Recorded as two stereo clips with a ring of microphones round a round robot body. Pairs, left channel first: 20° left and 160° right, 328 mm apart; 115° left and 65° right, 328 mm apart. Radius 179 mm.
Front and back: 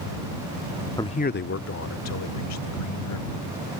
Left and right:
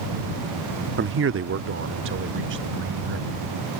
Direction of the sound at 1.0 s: 50° right.